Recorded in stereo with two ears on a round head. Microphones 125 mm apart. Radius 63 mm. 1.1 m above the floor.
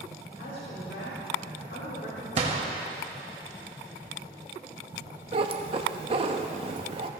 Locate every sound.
0.3 s a woman speaking: 85° left, 3 m
2.4 s a gunshot: 45° right (ahead or behind), 1.4 m
5.3 s a cat meowing: 40° right (ahead or behind), 0.7 m